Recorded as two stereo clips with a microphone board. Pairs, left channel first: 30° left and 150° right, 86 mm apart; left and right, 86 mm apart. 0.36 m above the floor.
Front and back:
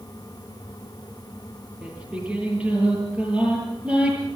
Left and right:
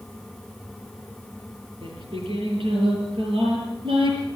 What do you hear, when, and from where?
1.8 s singing: 75° right, 8.5 m